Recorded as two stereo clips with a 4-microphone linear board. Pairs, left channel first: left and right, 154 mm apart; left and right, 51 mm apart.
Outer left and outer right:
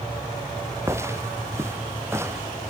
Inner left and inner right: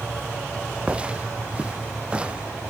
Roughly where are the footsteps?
Centre.